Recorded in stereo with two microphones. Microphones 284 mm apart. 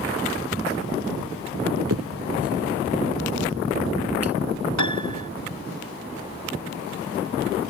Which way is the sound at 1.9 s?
65° right (ahead or behind).